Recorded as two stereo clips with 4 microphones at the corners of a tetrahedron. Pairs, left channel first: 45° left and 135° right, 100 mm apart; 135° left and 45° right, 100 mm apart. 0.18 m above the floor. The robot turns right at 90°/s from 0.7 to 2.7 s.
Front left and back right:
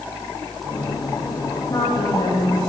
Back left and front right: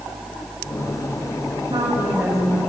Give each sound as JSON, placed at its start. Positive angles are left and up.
{"t": 1.7, "sound": "a woman speaking", "azimuth_deg": -15, "distance_m": 7.5}